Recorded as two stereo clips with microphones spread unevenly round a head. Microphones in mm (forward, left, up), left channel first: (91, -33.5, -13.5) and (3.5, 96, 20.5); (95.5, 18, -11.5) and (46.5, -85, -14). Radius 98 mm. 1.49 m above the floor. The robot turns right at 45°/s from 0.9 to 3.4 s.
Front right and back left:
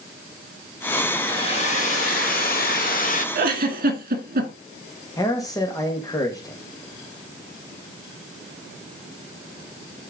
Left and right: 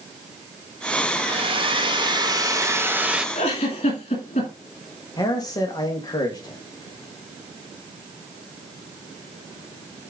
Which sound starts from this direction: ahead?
A man speaking, at 5.2 s.